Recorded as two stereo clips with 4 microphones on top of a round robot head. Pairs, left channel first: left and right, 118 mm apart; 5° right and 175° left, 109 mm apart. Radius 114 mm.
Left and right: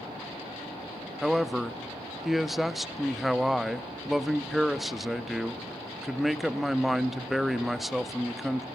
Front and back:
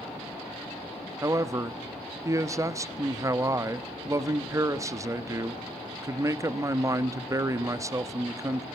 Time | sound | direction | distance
1.2 | a man speaking | 175° right | 1.0 m